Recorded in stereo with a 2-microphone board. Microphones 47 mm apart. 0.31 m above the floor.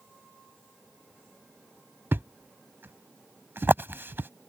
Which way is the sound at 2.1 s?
50° right (ahead or behind).